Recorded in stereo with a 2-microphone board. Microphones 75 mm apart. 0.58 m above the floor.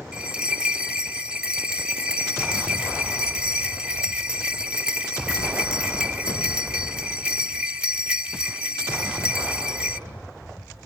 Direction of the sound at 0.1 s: 10° right (ahead or behind).